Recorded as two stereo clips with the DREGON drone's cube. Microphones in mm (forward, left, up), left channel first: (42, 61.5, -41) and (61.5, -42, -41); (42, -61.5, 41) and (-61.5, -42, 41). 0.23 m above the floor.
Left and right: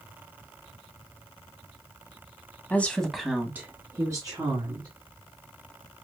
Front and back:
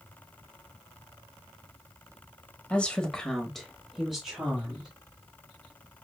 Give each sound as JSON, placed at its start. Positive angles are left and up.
{"t": 2.7, "sound": "a woman speaking", "azimuth_deg": 55, "distance_m": 1.2}